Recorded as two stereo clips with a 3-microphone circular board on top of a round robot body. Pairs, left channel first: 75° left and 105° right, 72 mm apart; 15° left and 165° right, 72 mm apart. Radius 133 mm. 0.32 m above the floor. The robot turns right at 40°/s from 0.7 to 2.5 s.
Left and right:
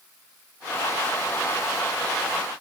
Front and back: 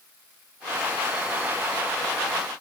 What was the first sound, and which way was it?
Only background noise.